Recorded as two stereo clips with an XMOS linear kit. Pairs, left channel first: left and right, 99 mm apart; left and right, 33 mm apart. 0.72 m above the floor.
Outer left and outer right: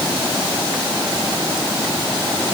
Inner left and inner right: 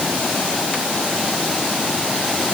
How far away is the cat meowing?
No cat meowing in this recording.